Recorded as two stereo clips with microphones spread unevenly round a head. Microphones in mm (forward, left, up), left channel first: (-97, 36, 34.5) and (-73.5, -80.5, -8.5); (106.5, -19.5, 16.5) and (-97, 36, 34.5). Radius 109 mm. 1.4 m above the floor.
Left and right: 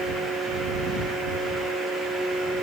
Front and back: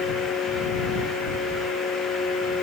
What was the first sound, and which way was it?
Only background noise.